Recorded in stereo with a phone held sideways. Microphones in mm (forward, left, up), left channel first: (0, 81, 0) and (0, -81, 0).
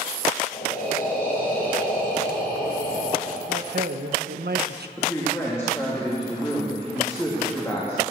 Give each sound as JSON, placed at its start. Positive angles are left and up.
{"t": 0.5, "sound": "breathing", "side_deg": 65, "distance_m": 6.0}
{"t": 3.5, "sound": "a man speaking", "side_deg": -85, "distance_m": 1.1}
{"t": 5.0, "sound": "a woman speaking", "side_deg": 15, "distance_m": 3.0}